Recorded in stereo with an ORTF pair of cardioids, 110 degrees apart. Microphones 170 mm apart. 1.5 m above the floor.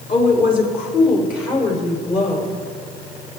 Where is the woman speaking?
50° left, 4 m; by 2.6 s 55° left, 6.5 m.